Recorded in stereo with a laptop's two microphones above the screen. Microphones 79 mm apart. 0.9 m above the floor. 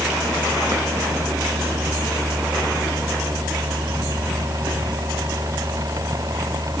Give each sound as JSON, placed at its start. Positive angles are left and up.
{"t": 0.0, "sound": "a machine running", "side_deg": -45}